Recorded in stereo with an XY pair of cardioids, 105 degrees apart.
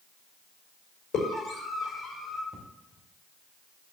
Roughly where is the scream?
Left.